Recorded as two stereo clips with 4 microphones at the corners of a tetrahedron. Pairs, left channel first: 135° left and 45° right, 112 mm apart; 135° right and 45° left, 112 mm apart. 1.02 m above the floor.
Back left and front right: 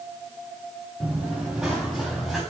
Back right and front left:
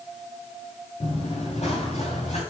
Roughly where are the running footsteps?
Behind right.